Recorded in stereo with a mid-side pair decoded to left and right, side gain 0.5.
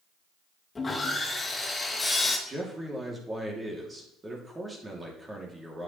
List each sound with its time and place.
0.8 s sawing: 20° left, 2.5 m
2.5 s a man speaking: 25° right, 3 m